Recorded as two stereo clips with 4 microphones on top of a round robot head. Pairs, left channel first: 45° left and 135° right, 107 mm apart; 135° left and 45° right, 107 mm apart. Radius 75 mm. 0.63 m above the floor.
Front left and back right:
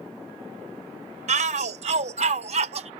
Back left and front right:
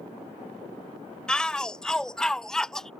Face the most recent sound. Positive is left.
turn(degrees=-140)